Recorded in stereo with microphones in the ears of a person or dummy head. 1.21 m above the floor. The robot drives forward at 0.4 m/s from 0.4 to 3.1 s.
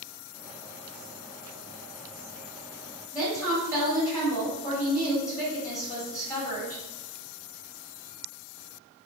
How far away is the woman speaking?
About 1.8 m.